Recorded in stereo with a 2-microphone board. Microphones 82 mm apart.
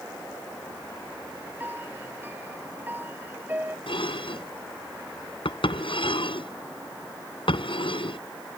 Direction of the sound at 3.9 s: 90° left.